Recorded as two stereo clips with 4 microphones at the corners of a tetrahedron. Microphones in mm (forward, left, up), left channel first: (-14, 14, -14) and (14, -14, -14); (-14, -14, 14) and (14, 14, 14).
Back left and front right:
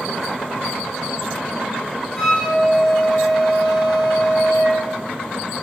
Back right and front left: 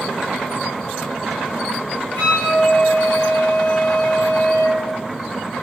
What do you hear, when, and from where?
2.1 s a flute: 155° right, 1.3 m